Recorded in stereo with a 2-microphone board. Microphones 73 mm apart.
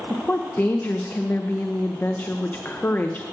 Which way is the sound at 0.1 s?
25° left (ahead or behind).